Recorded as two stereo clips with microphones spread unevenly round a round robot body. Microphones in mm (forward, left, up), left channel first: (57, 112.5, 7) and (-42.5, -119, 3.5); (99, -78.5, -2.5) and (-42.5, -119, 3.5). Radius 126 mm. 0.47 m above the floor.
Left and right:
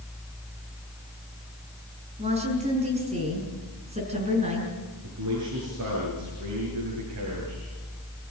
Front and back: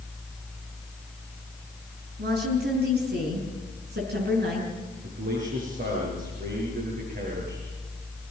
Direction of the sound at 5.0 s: 140° right.